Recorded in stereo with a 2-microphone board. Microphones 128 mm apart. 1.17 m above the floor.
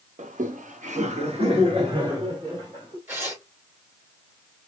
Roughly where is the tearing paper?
Right.